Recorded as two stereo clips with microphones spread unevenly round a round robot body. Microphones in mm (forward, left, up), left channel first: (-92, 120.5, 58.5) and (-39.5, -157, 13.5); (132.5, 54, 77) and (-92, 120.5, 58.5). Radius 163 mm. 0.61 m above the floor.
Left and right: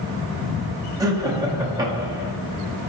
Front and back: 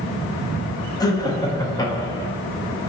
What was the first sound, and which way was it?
Laughter, 75° right.